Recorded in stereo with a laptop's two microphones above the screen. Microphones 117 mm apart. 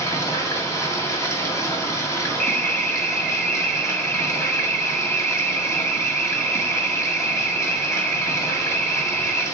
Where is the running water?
25° left (ahead or behind), 1.6 m.